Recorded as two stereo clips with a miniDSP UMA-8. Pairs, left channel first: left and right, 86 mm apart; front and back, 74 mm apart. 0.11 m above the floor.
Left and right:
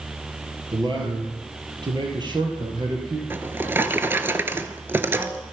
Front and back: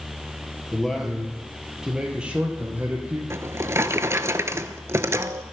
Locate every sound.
0.7 s a man speaking: 85° right, 2.5 m; by 3.2 s 115° right, 3 m
3.3 s a drawer: 145° right, 0.5 m